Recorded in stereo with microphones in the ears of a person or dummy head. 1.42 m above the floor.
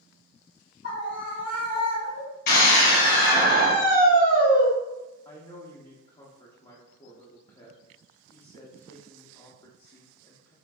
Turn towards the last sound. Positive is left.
turn(degrees=20)  # may be behind; listen again after turning